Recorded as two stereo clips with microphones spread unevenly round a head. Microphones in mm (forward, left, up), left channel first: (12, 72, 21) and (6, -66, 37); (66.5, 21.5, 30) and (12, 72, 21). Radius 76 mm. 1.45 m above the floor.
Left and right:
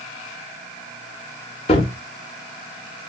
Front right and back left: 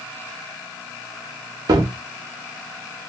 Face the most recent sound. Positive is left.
turn(degrees=135)